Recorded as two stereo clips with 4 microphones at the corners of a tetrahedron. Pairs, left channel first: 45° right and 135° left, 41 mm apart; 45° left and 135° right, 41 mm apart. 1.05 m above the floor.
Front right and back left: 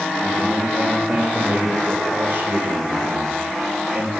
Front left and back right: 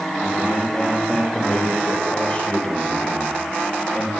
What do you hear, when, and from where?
0.2 s a man speaking: 110° left, 4.5 m